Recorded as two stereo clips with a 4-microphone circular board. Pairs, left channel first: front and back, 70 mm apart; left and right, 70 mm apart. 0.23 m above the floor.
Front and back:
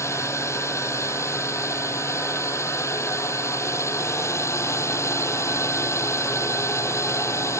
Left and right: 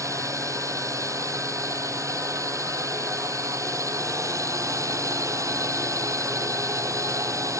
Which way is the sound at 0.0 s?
50° right.